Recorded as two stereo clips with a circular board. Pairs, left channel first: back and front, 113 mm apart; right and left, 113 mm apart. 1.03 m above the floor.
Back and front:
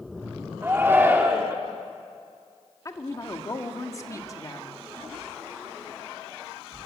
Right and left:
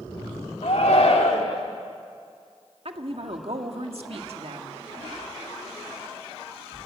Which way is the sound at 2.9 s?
120° left.